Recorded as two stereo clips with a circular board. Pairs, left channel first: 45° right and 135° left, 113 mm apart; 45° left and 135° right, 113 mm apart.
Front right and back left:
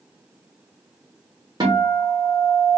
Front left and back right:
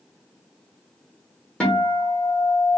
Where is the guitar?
120° left, 0.9 m.